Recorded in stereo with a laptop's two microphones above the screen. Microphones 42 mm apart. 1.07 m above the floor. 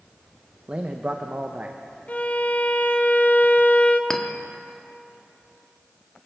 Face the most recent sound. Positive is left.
turn(degrees=15)  # may be behind; listen again after turning